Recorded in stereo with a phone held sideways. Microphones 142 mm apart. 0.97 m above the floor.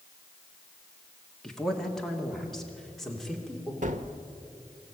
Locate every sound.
1.4 s a man speaking: 5° left (ahead or behind), 1.9 m; by 3.7 s centre (ahead or behind), 3 m
3.8 s a gunshot: 60° right (ahead or behind), 1.2 m